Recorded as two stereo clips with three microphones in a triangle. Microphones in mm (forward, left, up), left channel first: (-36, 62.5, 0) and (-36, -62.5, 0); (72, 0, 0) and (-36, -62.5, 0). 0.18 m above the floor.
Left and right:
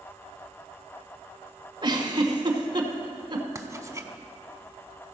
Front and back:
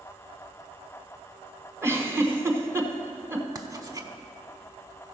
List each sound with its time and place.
1.8 s a giggle: 95° right, 1.0 m
3.5 s writing: 130° right, 0.7 m